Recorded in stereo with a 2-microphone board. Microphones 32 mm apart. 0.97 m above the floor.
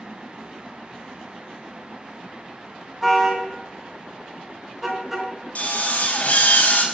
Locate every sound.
3.0 s a car horn: 10° right (ahead or behind), 4 m; by 5.3 s 5° right (ahead or behind), 5 m
5.5 s a drill: 50° left (ahead or behind), 4 m